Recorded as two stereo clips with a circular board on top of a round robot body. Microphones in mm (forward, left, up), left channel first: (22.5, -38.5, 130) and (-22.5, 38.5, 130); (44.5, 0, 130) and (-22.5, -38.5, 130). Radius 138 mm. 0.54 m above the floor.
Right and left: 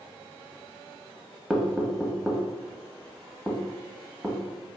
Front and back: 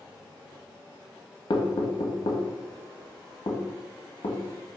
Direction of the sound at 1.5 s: 30° left.